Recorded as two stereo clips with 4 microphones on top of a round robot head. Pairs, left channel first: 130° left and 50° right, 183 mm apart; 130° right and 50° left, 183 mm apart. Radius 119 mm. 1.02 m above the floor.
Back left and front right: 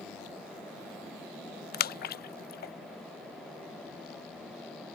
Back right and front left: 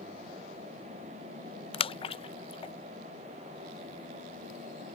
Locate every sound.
1.7 s a splash: 165° left